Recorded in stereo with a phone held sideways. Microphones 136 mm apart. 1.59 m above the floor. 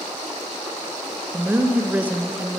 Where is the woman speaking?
10° right (ahead or behind), 0.6 m.